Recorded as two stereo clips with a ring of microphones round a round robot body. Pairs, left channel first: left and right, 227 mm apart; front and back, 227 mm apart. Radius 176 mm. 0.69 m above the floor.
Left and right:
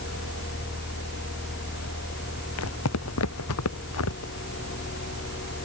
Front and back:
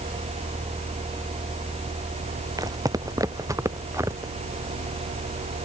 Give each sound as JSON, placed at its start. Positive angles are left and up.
{"t": 2.6, "sound": "footsteps", "azimuth_deg": 105}